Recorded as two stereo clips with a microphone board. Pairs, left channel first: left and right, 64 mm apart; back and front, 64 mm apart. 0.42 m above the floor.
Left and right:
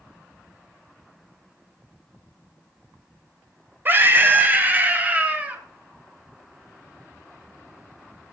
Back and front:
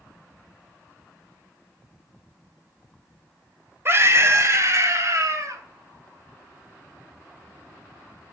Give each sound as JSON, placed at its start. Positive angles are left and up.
{"t": 3.9, "sound": "a scream", "azimuth_deg": -40, "distance_m": 2.5}